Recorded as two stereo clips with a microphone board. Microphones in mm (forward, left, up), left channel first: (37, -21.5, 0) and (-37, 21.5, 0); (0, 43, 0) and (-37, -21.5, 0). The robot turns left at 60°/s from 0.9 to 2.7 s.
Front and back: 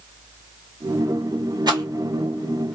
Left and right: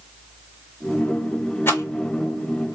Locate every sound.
1.7 s a rattle: 120° left, 0.9 m; by 2.8 s 55° left, 0.9 m